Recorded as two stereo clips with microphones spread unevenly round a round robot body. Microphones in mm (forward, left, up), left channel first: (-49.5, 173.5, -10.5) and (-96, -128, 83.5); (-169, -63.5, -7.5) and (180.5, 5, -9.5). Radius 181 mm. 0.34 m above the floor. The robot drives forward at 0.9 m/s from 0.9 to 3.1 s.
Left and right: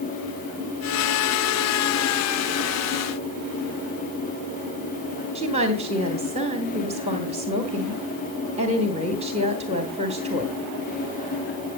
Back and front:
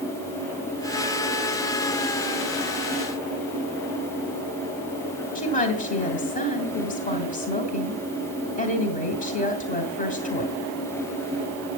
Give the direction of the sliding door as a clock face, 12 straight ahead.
I don't hear a sliding door.